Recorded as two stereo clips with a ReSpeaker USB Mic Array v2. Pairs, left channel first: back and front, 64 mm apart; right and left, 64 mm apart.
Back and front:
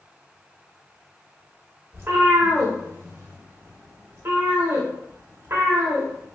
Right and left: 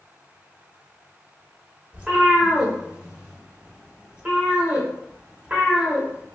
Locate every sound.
1.9 s a cat meowing: 30° left, 0.7 m